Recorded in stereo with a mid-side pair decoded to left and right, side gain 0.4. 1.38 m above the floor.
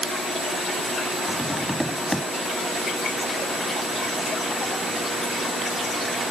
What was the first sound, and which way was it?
Tapping, 5° left.